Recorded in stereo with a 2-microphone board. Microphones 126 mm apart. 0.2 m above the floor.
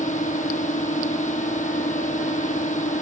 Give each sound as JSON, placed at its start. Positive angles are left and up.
{"t": 0.0, "sound": "a drone", "side_deg": 75}